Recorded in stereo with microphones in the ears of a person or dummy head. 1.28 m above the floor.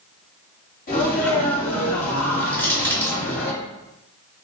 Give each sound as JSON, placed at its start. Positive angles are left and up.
{"t": 0.9, "sound": "a sneeze", "side_deg": 50, "distance_m": 2.0}
{"t": 2.5, "sound": "crushing", "side_deg": 10, "distance_m": 0.8}